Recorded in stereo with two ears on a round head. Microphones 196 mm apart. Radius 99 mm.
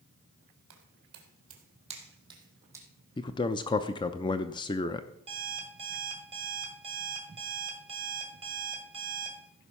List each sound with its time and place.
0.7 s footsteps: 55° right (ahead or behind), 2.5 m; by 2.9 s 10° right (ahead or behind), 3 m
3.2 s a man speaking: 20° left (ahead or behind), 0.5 m
5.3 s an alarm clock: 25° right (ahead or behind), 2.5 m